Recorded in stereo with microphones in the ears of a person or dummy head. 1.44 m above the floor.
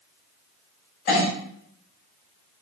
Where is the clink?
50° left (ahead or behind), 2 m.